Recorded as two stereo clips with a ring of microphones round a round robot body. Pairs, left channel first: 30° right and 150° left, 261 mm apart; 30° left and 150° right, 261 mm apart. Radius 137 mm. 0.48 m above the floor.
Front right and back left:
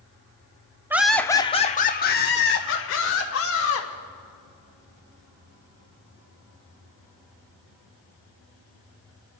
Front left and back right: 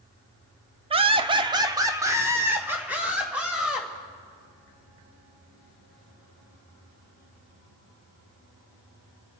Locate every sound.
0.9 s laughter: 145° right, 0.7 m; by 3.9 s 65° right, 2 m